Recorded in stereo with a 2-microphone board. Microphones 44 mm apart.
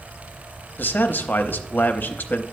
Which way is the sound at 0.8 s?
45° left (ahead or behind).